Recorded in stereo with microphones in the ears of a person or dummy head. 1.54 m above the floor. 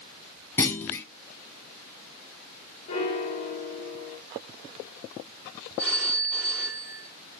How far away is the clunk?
About 0.7 m.